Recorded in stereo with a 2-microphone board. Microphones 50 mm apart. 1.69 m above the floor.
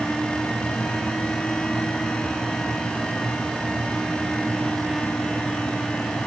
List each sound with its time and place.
Only background noise.